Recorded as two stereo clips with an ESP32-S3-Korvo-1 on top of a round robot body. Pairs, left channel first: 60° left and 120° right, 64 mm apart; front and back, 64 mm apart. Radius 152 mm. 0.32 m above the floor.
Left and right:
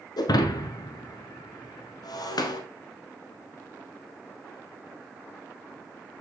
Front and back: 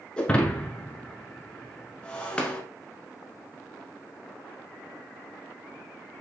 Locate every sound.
0.2 s breaking glass: 75° left, 1.0 m